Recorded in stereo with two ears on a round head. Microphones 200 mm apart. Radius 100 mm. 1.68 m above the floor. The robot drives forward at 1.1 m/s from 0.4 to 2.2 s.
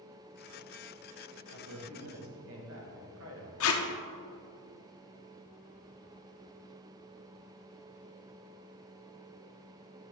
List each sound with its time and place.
1.5 s a man speaking: 85° right, 2 m; by 3.5 s 65° right (ahead or behind), 2.5 m
3.6 s tape being pulled: 65° left (ahead or behind), 1.1 m